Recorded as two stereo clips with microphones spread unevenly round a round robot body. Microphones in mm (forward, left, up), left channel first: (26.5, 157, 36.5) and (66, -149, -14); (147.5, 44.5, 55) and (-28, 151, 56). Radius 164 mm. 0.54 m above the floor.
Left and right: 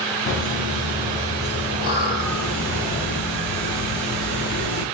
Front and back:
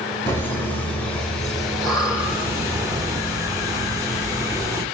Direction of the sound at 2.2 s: 75° left.